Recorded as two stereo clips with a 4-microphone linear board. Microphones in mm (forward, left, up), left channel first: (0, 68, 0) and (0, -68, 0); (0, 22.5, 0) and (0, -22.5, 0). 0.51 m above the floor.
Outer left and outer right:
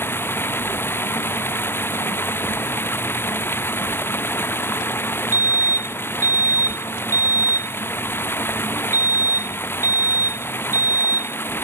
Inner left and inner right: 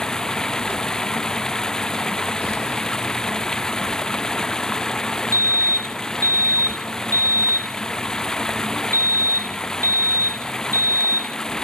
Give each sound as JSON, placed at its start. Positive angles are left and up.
{"t": 0.0, "sound": "running water", "side_deg": 15}
{"t": 5.3, "sound": "a fire alarm", "side_deg": -75}